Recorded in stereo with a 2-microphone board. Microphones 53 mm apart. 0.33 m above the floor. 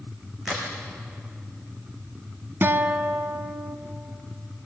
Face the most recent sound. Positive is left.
turn(degrees=-50)  # may be behind; listen again after turning